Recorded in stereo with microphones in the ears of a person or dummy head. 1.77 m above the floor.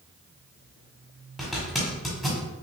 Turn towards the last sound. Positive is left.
turn(degrees=0)  # may be behind; listen again after turning